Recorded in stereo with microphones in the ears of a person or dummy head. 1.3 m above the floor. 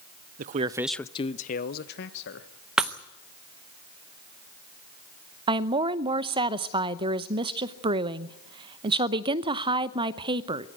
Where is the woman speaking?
20° right (ahead or behind), 0.7 m.